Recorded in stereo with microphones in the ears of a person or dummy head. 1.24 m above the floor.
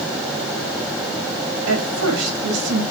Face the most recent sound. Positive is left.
turn(degrees=-90)